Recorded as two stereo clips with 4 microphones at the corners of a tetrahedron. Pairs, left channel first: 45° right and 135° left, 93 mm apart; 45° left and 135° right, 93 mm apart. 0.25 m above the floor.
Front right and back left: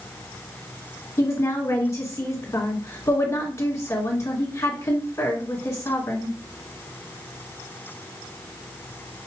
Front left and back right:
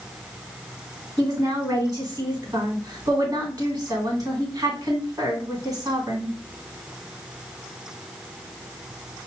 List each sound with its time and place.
1.2 s a woman speaking: 90° right, 1.9 m